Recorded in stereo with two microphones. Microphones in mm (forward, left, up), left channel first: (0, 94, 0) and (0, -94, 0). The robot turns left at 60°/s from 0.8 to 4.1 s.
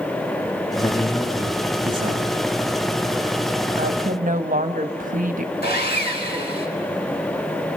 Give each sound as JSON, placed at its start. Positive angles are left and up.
{"t": 0.8, "sound": "a man speaking", "azimuth_deg": 30, "distance_m": 1.7}
{"t": 3.8, "sound": "a woman speaking", "side_deg": -65, "distance_m": 1.2}
{"t": 5.6, "sound": "sawing", "side_deg": 60, "distance_m": 3.5}